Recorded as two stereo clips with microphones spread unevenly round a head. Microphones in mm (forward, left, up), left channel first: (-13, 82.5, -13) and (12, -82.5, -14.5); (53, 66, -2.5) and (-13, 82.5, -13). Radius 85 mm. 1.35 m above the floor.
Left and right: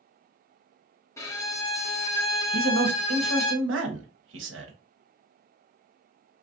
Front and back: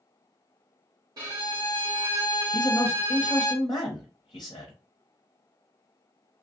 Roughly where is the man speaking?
Right.